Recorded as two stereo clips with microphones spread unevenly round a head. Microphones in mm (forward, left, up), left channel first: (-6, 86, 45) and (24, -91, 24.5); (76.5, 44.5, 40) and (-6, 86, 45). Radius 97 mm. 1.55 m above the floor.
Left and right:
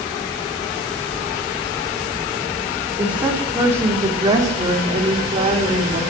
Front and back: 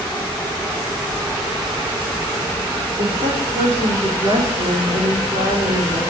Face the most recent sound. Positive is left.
turn(degrees=-140)